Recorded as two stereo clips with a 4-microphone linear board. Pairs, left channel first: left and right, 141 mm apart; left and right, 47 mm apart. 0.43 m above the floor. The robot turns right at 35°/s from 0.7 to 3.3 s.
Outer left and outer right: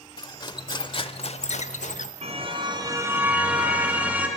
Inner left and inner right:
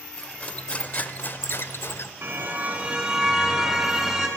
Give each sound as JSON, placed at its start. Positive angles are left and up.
{"t": 0.2, "sound": "cutlery clinking", "azimuth_deg": 35, "distance_m": 0.8}
{"t": 2.2, "sound": "a car horn", "azimuth_deg": -50, "distance_m": 2.5}